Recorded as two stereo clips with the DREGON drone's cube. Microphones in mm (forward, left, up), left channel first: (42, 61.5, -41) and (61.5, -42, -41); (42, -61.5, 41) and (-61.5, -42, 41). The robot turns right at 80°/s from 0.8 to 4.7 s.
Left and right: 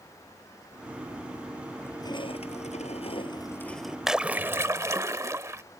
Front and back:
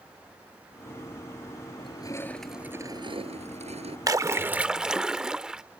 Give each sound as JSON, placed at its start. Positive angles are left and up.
{"t": 1.8, "sound": "crushing", "azimuth_deg": 25}
{"t": 4.1, "sound": "a splash", "azimuth_deg": -160}